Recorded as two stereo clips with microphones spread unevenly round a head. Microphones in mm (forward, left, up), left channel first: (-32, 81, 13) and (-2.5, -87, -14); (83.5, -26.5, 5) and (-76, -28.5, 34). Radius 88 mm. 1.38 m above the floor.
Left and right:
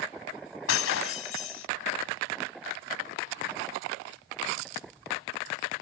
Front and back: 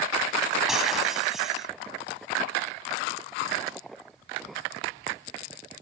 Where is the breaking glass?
95° left.